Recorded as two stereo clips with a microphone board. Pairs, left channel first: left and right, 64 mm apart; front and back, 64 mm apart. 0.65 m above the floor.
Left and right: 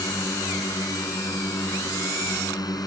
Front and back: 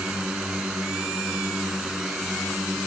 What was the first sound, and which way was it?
A drone, 105° left.